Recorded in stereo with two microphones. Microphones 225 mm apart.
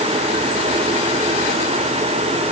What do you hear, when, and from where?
Only background noise.